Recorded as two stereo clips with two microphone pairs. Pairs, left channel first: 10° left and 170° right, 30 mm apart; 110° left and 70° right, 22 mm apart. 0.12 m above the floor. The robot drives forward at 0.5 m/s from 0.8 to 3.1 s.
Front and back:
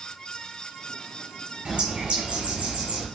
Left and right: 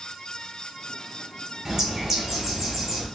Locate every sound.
1.6 s a bird: 135° right, 1.2 m; by 3.1 s 155° right, 1.7 m